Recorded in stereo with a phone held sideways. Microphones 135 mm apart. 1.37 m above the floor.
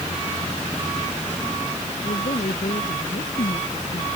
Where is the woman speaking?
75° left (ahead or behind); by 4.1 s 70° left (ahead or behind).